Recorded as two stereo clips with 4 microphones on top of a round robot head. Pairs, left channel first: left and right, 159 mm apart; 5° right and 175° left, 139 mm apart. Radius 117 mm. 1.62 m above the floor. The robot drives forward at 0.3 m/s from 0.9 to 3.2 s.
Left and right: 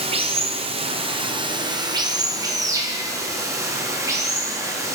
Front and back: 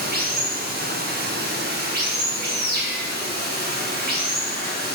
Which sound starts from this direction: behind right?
Running water, at 0.0 s.